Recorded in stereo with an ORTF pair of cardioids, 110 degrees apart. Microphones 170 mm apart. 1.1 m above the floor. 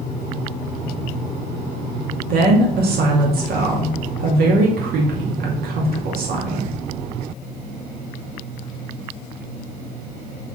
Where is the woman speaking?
65° right, 2.5 m.